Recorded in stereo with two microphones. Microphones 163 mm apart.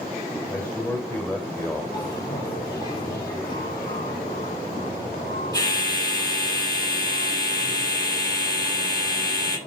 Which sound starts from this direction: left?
A bell, at 1.9 s.